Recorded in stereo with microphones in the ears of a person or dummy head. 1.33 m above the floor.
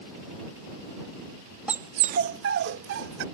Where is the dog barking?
5° right (ahead or behind); by 3.2 s 70° right (ahead or behind).